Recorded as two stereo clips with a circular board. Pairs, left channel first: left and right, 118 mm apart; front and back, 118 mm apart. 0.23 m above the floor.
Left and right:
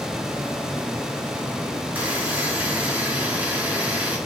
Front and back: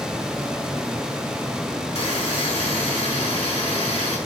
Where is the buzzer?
15° right, 3.5 m.